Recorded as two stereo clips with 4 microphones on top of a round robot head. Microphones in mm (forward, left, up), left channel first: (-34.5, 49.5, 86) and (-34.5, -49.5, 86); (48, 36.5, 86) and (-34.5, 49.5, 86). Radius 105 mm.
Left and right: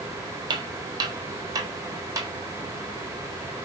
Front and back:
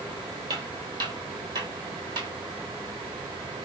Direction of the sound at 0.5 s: 130° right.